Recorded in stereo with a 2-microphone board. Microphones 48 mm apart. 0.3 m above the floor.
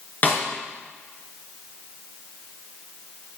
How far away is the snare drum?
About 4 m.